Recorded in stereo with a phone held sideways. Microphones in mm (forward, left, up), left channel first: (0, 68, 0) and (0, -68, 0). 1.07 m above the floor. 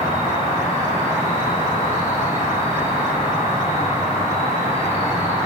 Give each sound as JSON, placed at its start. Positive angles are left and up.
{"t": 0.0, "sound": "an insect", "side_deg": 50, "distance_m": 1.2}